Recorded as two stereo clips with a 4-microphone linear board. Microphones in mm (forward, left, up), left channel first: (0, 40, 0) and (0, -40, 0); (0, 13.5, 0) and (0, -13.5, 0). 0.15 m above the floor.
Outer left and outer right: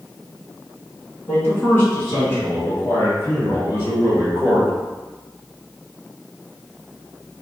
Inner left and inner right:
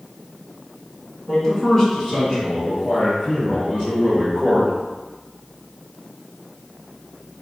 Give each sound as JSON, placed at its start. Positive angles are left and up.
{"t": 1.3, "sound": "a man speaking", "side_deg": 25, "distance_m": 1.7}